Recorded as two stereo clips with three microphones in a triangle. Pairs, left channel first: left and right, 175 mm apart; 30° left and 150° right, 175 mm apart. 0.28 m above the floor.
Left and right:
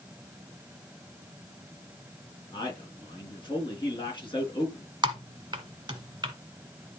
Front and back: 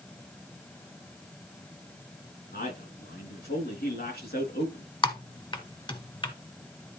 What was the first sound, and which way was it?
A man speaking, 30° left.